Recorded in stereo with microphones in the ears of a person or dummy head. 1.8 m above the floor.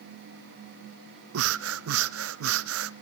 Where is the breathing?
75° right (ahead or behind), 0.6 m.